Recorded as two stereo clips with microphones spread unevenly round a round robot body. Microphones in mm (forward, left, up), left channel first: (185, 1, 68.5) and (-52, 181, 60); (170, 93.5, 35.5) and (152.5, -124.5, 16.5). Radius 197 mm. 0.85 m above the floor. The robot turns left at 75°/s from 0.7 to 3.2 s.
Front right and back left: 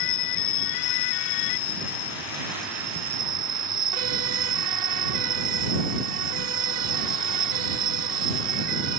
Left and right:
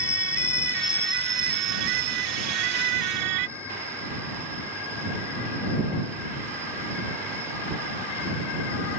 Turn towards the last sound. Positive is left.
turn(degrees=180)